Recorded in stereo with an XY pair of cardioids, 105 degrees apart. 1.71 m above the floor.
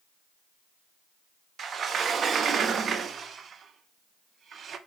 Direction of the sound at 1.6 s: 50° right.